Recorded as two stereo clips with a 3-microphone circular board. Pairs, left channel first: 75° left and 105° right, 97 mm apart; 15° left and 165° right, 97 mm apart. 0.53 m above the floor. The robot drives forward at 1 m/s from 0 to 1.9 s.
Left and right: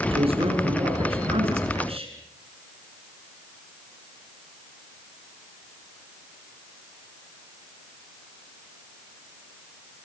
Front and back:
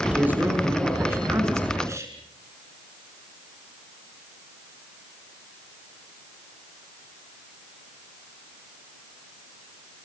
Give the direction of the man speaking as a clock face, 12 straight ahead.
3 o'clock.